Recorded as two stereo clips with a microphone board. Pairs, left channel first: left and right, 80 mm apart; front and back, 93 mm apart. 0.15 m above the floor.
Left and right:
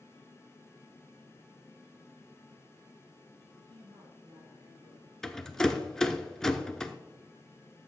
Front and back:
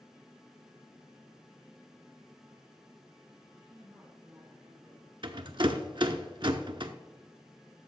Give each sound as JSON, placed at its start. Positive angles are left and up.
{"t": 3.5, "sound": "a woman speaking", "azimuth_deg": -115, "distance_m": 3.5}
{"t": 5.2, "sound": "a rattle", "azimuth_deg": 170, "distance_m": 0.5}